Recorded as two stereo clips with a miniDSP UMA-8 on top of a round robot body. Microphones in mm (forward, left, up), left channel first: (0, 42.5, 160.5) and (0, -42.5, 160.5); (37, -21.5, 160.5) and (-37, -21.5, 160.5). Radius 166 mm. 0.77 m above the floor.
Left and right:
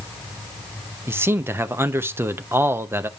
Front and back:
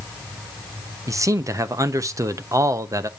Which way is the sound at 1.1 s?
145° right.